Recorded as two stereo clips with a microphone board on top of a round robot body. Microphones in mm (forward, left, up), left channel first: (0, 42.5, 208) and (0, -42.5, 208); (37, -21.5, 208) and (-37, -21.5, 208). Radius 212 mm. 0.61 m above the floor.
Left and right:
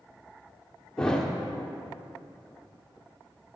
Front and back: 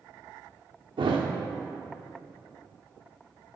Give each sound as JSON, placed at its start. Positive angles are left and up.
{"t": 1.0, "sound": "a thud", "azimuth_deg": 170, "distance_m": 0.9}